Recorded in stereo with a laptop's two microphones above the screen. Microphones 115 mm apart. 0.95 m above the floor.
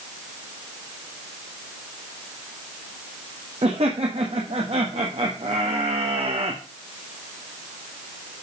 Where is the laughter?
70° right (ahead or behind), 1.4 m.